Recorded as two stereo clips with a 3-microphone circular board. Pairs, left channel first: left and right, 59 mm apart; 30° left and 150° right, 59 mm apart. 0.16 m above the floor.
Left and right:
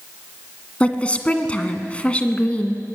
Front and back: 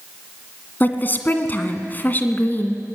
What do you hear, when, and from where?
0.8 s a woman speaking: 40° left, 1.6 m